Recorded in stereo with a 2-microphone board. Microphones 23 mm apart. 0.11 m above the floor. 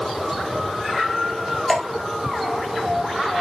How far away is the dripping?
About 1.6 m.